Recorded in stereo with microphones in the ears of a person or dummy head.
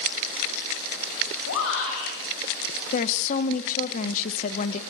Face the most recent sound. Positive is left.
turn(degrees=40)  # may be behind; listen again after turning